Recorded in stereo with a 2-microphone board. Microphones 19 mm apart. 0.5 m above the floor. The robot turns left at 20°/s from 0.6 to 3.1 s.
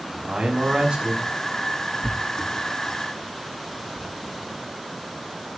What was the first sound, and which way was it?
A man speaking, 75° right (ahead or behind).